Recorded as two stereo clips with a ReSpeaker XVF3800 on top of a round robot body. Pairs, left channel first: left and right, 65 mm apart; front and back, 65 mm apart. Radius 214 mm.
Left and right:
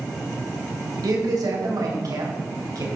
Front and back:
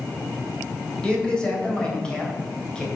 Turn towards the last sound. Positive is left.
turn(degrees=-75)